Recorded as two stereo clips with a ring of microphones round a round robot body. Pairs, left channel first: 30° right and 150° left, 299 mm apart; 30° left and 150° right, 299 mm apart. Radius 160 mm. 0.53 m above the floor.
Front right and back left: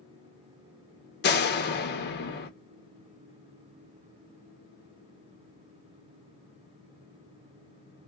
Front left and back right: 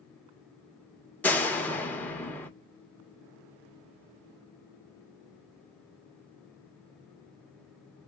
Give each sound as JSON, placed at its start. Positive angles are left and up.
{"t": 1.2, "sound": "a door slam", "azimuth_deg": -50, "distance_m": 0.9}